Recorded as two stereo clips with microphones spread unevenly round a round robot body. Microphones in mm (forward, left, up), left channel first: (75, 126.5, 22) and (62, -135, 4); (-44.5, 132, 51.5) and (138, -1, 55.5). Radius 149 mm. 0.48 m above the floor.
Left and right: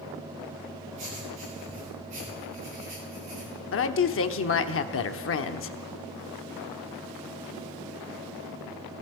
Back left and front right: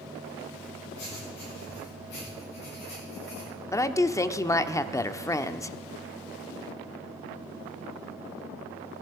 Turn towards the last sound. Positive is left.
turn(degrees=70)